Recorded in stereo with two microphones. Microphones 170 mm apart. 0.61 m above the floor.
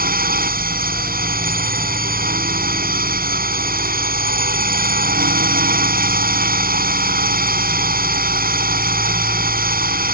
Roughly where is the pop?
No pop in this recording.